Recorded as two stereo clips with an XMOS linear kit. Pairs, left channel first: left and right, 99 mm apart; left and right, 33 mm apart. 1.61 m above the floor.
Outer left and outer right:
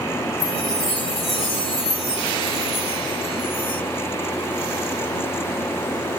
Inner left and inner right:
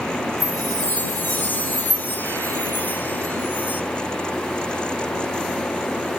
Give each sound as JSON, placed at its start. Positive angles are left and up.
{"t": 0.4, "sound": "a chime", "side_deg": 70}